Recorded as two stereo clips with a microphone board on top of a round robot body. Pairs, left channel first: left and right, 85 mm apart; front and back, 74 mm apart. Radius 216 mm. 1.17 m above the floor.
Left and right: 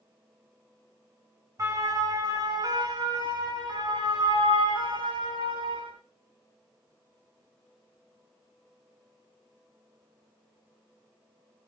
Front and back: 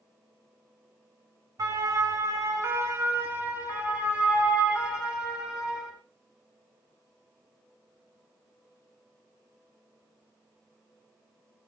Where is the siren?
140° right, 4.5 m; by 5.9 s 100° right, 9.5 m.